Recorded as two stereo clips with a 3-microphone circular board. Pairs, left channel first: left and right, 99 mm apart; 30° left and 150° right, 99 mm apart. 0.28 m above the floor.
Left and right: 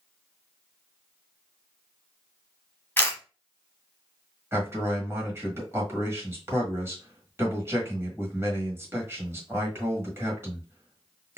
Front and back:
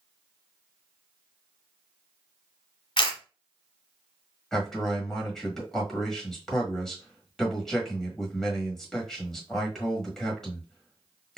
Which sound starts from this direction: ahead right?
A man speaking, at 4.5 s.